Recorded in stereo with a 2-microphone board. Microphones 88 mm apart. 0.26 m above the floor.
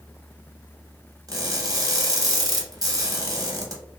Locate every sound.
1.3 s crushing: 40° right (ahead or behind), 0.7 m